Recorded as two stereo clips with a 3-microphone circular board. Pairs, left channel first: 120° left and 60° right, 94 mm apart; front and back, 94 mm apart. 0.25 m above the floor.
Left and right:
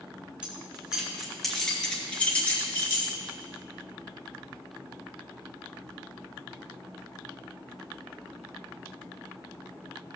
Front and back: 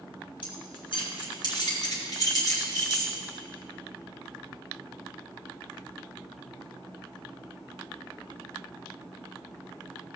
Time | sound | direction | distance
0.4 | keys jangling | 15° left | 3.5 m